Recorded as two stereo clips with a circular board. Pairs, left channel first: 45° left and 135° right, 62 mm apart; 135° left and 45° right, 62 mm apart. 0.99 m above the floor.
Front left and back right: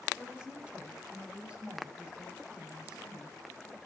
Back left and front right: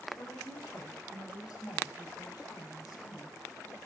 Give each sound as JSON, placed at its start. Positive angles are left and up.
{"t": 0.2, "sound": "a woman speaking", "azimuth_deg": 150, "distance_m": 4.0}